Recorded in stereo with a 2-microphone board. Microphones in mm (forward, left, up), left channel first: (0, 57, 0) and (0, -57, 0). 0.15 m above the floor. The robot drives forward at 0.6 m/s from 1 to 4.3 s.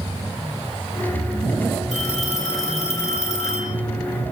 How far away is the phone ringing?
About 2.5 m.